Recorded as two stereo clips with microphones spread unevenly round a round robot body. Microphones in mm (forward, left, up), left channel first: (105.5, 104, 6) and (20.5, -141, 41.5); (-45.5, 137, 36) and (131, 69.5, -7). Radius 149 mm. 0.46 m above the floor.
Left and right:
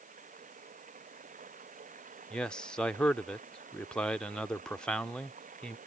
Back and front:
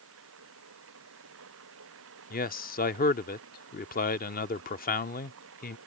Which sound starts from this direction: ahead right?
Running water, at 0.0 s.